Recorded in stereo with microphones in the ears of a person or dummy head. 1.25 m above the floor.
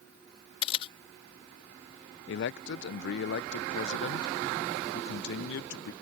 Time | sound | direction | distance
0.6 | a camera shutter | 30° left (ahead or behind) | ?
2.3 | a man speaking | 60° left (ahead or behind) | ?